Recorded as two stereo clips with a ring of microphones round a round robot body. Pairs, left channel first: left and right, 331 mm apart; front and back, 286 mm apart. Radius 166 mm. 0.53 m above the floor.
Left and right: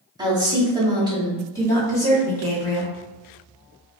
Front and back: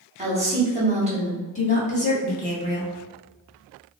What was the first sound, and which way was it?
A woman speaking, 150° right.